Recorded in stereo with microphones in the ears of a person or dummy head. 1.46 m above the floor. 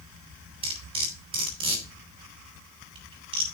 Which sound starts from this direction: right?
Cutlery clinking, at 0.6 s.